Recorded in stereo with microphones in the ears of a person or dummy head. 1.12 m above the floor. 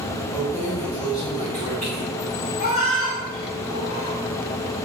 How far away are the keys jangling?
About 1.4 m.